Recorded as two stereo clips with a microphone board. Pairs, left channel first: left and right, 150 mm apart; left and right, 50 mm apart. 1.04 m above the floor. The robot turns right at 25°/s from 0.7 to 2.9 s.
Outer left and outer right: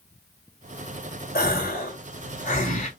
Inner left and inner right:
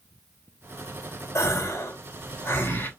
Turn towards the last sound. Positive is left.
turn(degrees=130)